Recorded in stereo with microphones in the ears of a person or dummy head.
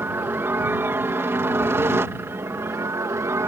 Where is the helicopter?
15° right (ahead or behind); by 3.5 s 20° right (ahead or behind).